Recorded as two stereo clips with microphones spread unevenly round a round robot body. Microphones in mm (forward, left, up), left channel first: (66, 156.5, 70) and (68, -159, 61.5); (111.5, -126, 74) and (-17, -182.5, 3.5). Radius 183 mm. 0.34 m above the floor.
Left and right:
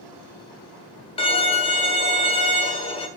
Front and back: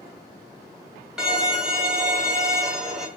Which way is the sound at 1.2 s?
155° left.